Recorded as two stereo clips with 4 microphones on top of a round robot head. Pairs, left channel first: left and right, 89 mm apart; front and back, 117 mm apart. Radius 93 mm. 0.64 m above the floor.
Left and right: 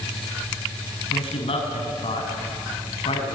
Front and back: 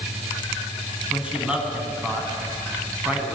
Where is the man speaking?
100° left, 6.5 m.